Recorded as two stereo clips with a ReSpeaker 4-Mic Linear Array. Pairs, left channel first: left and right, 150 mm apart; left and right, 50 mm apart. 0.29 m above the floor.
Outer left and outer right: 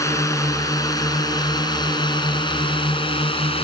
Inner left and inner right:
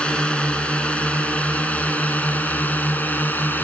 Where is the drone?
20° left (ahead or behind); by 3.6 s 35° left (ahead or behind).